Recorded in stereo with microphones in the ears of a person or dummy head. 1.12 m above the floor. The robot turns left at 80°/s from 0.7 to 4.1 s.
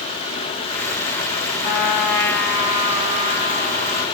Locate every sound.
1.6 s a trumpet: 70° left, 0.9 m; by 4.0 s 125° right, 0.9 m